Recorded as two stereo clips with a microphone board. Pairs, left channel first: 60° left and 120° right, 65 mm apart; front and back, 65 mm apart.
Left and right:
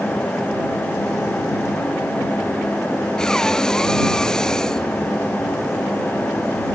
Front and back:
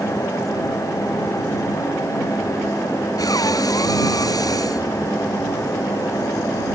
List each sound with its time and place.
3.2 s breathing: 20° right